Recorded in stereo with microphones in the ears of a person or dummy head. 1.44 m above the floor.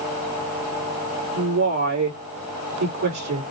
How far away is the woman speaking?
About 2.5 m.